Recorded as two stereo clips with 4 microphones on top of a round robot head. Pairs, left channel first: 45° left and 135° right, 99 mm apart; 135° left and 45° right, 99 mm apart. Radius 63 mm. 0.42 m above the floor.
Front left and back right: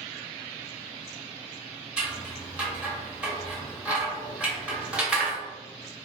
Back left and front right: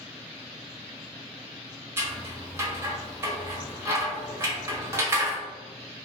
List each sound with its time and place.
2.0 s scissors: 65° right, 1.2 m